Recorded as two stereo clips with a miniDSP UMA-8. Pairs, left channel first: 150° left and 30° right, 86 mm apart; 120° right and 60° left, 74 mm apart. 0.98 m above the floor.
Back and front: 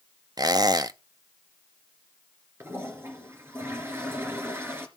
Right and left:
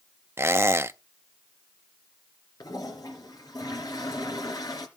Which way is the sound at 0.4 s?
10° left.